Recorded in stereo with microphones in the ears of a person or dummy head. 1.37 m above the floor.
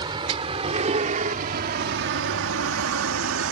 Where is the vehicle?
25° right (ahead or behind); by 3.5 s 70° right (ahead or behind).